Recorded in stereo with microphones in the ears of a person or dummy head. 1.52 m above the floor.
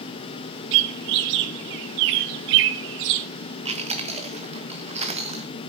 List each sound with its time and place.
0.7 s a bird: 60° right (ahead or behind), 0.7 m
3.6 s chewing: 35° right (ahead or behind), 1.5 m